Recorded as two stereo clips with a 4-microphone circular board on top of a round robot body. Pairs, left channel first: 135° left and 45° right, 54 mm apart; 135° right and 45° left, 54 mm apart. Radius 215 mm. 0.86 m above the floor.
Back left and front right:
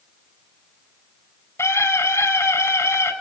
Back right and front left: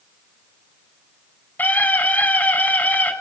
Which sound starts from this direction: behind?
A scream, at 1.6 s.